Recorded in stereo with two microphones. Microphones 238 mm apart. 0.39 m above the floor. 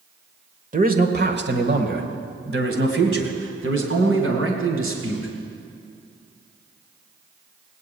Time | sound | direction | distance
0.7 | a man speaking | 35° right (ahead or behind) | 1.1 m